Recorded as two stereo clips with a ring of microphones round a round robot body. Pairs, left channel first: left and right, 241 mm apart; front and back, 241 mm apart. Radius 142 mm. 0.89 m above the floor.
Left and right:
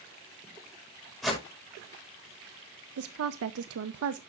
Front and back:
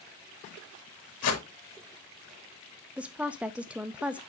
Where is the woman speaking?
95° right, 0.6 m.